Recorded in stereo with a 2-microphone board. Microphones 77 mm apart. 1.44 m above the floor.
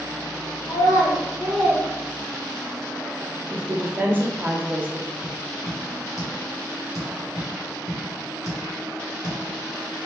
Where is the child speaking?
50° left (ahead or behind), 0.7 m; by 2.8 s 35° right (ahead or behind), 1.3 m.